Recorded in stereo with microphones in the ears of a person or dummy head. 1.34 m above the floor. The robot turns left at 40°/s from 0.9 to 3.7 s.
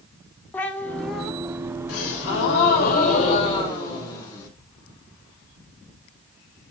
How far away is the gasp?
About 5 m.